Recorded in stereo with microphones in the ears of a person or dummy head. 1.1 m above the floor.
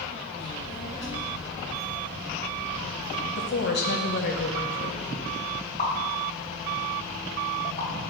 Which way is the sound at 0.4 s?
10° right (ahead or behind).